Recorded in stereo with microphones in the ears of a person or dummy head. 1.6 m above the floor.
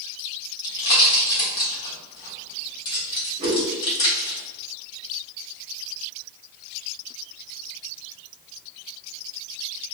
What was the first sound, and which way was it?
A pop, 25° left (ahead or behind).